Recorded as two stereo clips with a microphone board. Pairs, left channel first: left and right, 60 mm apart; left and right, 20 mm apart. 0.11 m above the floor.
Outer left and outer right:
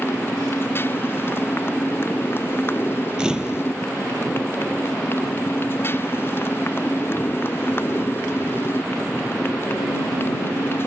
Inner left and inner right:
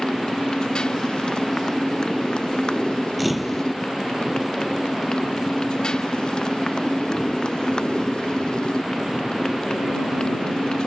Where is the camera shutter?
10° right (ahead or behind).